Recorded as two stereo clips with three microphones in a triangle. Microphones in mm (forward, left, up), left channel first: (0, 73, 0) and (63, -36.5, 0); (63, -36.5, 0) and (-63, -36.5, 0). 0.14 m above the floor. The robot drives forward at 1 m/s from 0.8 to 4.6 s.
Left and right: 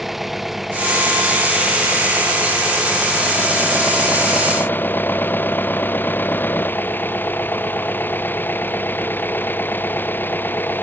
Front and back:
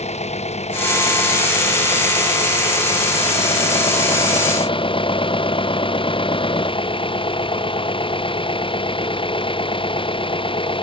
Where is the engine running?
30° left; by 10.8 s 45° left.